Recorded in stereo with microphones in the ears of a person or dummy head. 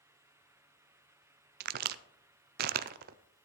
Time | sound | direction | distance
1.6 | a crack | 50° right (ahead or behind) | 0.6 m